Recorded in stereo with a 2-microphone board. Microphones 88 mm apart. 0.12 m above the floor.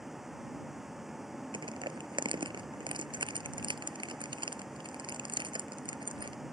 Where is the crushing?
65° right (ahead or behind).